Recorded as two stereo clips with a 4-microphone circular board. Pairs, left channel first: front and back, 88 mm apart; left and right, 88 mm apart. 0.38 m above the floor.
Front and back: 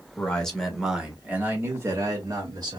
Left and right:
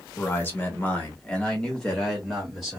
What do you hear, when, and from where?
0.2 s a man speaking: 60° left, 1.2 m; by 2.8 s 175° right, 1.6 m